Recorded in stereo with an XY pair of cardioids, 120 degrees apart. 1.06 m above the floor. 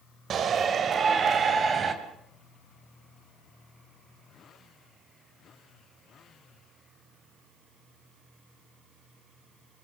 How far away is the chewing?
No chewing in this recording.